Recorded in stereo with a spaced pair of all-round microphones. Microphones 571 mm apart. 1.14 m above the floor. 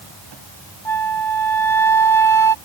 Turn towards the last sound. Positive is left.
turn(degrees=50)  # may be behind; listen again after turning